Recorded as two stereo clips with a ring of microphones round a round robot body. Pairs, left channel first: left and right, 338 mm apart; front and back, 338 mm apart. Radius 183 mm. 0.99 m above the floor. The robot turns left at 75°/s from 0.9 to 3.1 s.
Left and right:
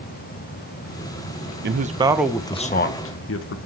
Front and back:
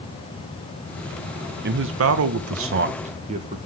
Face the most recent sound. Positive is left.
turn(degrees=115)